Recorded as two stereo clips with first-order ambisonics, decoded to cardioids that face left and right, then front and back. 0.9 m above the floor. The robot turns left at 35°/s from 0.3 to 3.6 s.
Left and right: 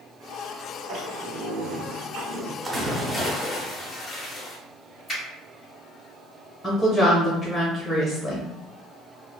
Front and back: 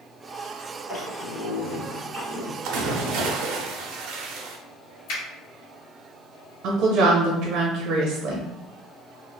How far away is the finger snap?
About 1.7 m.